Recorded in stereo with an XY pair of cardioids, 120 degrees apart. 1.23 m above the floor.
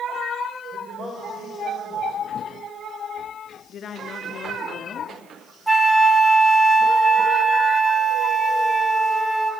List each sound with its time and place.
0.7 s a man speaking: 40° right, 5.5 m
3.7 s a woman speaking: 50° left, 2.5 m
5.7 s a flute: 5° right, 1.1 m